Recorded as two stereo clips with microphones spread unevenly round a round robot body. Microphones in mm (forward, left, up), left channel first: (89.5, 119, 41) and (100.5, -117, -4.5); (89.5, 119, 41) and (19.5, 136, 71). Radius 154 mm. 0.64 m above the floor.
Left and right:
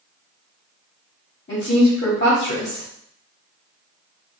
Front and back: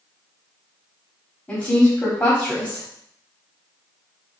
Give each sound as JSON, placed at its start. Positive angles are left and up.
{"t": 1.5, "sound": "a woman speaking", "azimuth_deg": 40, "distance_m": 1.7}